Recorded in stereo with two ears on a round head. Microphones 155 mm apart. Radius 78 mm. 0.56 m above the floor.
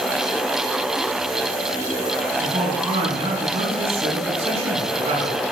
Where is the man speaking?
35° right (ahead or behind), 5.5 m.